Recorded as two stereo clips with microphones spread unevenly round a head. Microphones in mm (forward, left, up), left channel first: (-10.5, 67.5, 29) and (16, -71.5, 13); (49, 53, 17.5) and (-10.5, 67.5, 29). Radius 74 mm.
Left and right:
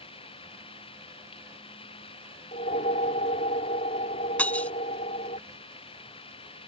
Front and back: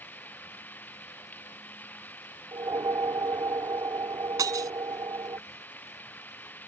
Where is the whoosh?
145° left.